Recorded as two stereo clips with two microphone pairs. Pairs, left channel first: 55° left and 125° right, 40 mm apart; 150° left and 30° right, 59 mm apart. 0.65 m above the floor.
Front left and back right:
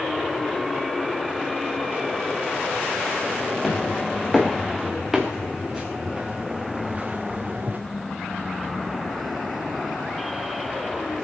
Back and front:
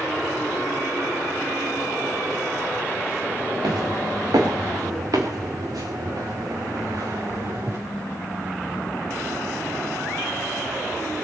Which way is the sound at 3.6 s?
25° right.